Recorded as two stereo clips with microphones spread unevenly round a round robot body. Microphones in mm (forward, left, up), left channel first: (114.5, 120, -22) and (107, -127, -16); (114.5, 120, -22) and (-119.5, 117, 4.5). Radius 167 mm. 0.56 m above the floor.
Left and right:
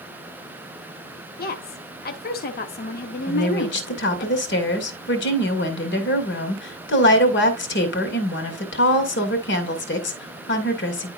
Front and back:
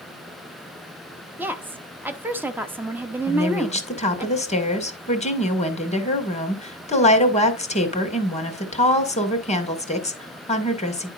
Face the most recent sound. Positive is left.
turn(degrees=55)